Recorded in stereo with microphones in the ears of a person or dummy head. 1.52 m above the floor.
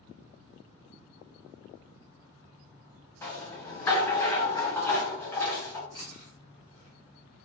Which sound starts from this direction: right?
Chewing, at 5.9 s.